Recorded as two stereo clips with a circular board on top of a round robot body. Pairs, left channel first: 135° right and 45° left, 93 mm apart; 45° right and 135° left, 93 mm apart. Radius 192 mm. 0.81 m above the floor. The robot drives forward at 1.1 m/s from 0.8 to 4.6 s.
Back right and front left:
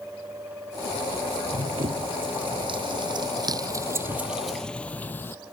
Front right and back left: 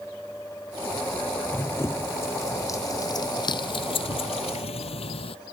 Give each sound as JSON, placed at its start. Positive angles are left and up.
{"t": 1.5, "sound": "running footsteps", "azimuth_deg": 20}